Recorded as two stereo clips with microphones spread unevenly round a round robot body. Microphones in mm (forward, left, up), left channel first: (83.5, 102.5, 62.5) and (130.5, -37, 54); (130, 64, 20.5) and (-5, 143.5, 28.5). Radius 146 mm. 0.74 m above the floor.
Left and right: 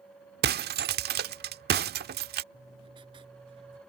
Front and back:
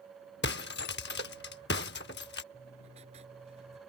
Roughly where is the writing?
Behind right.